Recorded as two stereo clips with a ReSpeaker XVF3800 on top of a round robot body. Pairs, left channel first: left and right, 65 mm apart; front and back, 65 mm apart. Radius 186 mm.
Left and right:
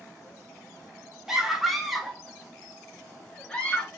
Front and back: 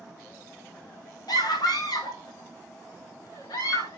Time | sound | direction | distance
1.3 | a scream | 5° right | 3.5 m